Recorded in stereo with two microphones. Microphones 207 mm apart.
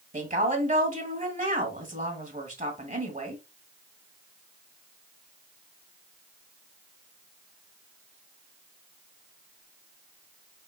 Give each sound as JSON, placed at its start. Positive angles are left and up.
{"t": 0.1, "sound": "a woman speaking", "side_deg": -40, "distance_m": 1.5}